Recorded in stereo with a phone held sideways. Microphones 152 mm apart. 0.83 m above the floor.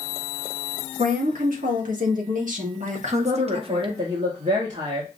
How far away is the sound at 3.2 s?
About 1.1 m.